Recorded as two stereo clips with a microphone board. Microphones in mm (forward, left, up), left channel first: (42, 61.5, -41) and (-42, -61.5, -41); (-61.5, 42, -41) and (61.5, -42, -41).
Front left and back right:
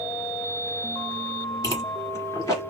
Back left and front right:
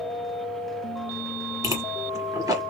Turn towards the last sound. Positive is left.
turn(degrees=10)